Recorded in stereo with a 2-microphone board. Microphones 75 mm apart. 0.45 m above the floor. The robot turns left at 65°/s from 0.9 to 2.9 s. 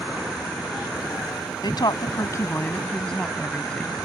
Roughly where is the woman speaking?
Left.